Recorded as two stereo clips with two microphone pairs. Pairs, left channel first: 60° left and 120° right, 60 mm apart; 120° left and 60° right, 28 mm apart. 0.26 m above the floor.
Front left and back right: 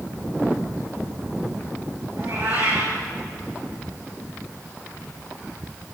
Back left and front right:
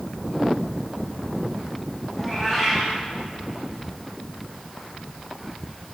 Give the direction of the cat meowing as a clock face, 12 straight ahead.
5 o'clock.